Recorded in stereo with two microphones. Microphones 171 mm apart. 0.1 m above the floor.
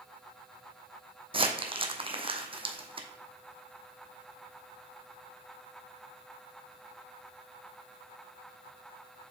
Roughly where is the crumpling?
Right.